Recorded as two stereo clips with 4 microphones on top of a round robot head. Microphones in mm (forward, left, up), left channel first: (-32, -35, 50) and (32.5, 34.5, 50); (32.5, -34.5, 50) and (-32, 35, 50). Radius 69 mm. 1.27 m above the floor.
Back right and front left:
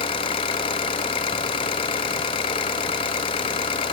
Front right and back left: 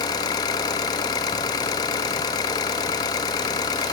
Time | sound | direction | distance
0.0 | an engine running | 95° right | 0.8 m